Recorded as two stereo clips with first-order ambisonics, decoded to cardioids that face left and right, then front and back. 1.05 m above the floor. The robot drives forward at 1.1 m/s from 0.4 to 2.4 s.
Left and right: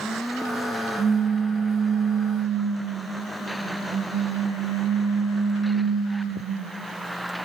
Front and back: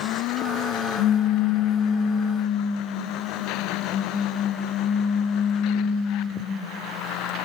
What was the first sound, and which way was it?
A pop, 20° right.